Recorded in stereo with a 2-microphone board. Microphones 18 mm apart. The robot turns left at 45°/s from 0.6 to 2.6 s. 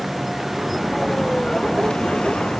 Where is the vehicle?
175° right; by 2.6 s 95° left.